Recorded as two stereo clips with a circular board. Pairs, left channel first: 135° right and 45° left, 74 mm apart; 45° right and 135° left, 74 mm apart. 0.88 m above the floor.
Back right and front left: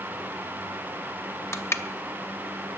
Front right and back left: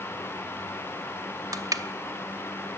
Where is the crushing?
175° left, 0.9 m.